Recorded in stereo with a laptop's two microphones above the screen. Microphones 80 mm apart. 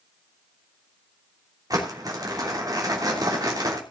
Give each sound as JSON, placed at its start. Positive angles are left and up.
{"t": 1.7, "sound": "crumpling", "side_deg": -50, "distance_m": 3.0}